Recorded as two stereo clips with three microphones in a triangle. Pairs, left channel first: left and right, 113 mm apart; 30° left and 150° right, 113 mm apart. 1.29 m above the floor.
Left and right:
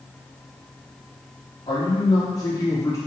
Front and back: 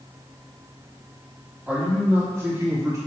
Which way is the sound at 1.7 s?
135° left.